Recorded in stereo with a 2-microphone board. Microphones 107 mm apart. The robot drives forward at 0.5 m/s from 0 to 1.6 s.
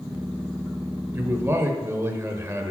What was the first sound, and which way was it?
A man speaking, 25° right (ahead or behind).